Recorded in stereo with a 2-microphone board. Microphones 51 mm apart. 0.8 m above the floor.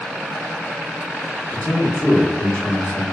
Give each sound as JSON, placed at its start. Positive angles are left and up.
{"t": 1.5, "sound": "a man speaking", "side_deg": 25, "distance_m": 1.1}